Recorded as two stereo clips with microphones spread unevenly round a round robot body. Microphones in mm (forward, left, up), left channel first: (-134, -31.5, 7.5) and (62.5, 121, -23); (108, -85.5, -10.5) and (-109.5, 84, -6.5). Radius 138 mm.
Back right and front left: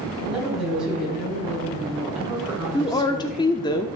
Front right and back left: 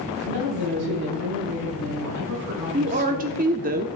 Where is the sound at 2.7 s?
150° left, 0.7 m.